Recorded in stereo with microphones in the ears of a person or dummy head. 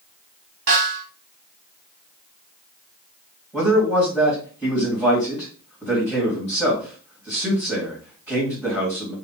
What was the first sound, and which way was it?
A snare drum, 70° right (ahead or behind).